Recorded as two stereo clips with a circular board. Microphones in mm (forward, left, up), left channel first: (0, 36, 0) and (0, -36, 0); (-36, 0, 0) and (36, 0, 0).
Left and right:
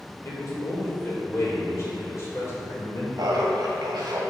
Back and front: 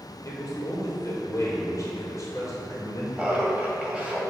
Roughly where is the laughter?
Right.